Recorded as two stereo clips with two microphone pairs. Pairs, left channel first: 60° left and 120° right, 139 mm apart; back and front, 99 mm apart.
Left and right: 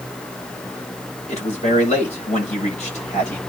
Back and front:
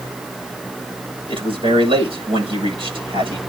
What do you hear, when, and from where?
1.3 s a man speaking: 25° left, 7.5 m